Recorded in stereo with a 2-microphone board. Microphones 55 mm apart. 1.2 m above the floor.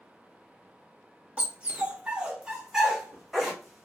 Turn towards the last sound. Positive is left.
turn(degrees=-5)  # may be behind; listen again after turning